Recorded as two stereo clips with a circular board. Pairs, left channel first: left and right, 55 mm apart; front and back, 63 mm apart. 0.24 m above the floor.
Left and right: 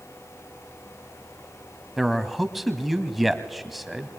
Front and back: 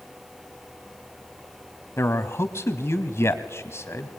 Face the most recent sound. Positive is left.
turn(degrees=0)